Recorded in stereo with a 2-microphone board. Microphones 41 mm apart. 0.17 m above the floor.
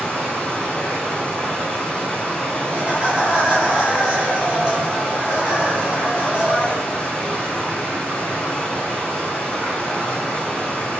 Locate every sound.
0.0 s running water: 30° left (ahead or behind), 1.1 m
2.7 s laughter: 25° right (ahead or behind), 1.1 m